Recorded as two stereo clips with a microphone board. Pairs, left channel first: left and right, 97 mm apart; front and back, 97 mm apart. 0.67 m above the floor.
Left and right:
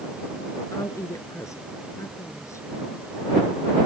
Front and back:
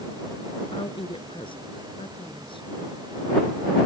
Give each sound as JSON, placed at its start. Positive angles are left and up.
{"t": 0.7, "sound": "a woman speaking", "azimuth_deg": 30}